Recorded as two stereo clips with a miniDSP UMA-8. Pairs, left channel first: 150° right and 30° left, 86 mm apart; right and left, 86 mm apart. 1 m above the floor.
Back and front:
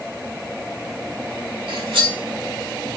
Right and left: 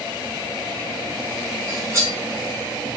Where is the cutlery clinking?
35° left, 1.2 m.